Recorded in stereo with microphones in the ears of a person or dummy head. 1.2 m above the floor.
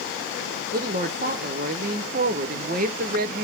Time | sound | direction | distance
0.7 | a woman speaking | 45° right (ahead or behind) | 0.8 m